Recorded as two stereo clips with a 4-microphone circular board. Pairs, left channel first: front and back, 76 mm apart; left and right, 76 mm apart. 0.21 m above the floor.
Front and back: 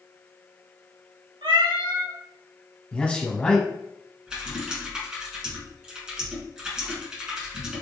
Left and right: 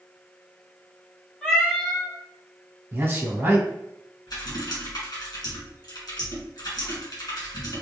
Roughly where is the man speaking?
Ahead right.